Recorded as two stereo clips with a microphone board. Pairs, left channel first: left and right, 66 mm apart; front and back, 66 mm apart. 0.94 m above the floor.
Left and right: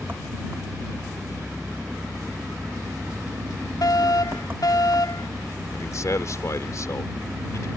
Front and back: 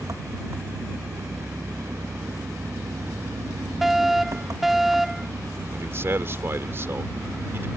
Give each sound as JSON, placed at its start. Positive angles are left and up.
{"t": 0.0, "sound": "an engine running", "azimuth_deg": -150}
{"t": 3.8, "sound": "a fire alarm", "azimuth_deg": 95}
{"t": 5.7, "sound": "a man speaking", "azimuth_deg": 130}